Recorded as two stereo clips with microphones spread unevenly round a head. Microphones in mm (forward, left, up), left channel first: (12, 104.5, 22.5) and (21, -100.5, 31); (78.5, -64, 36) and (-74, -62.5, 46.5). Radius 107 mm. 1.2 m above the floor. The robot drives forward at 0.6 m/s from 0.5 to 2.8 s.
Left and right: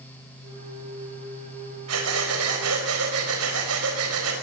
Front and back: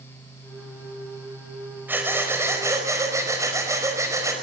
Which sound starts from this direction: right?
Breathing, at 1.9 s.